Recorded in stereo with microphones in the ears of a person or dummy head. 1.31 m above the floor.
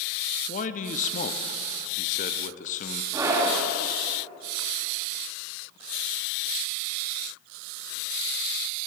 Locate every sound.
0.5 s a man speaking: 35° left (ahead or behind), 0.5 m
3.1 s a scream: 15° right (ahead or behind), 2.5 m